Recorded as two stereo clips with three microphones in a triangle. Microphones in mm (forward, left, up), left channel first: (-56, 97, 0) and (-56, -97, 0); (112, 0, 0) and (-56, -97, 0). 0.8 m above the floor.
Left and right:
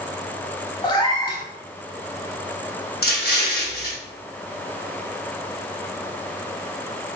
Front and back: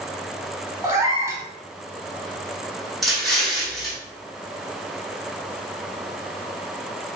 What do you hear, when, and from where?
0.8 s a cat meowing: 145° left, 0.8 m
3.0 s an explosion: 120° left, 1.2 m